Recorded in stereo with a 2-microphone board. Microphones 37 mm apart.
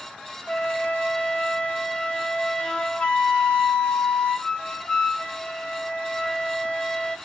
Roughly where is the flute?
Left.